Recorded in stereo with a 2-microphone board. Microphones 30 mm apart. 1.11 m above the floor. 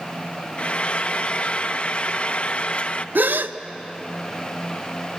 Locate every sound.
0.6 s frying: 40° left (ahead or behind), 0.6 m
3.1 s a gasp: 85° right, 0.6 m